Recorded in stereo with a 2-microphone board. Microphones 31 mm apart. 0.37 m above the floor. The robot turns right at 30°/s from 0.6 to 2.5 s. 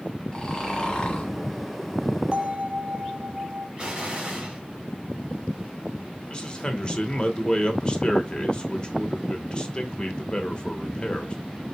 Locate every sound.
0.3 s snoring: 20° left (ahead or behind), 1.5 m; by 1.3 s 45° left (ahead or behind), 1.5 m
2.3 s a bell: 35° right (ahead or behind), 0.7 m; by 3.7 s 40° right (ahead or behind), 0.7 m
3.8 s an explosion: 30° right (ahead or behind), 1.4 m
6.3 s a man speaking: 30° left (ahead or behind), 0.9 m